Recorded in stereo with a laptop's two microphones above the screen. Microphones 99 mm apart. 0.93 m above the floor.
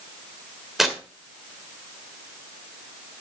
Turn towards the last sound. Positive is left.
turn(degrees=0)  # may be behind; listen again after turning